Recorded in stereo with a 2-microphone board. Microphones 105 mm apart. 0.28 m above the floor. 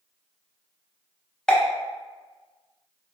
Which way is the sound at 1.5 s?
5° left (ahead or behind).